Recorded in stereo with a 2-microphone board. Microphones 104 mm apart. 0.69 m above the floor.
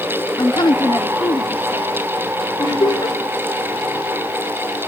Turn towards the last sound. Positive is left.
turn(degrees=40)  # may be behind; listen again after turning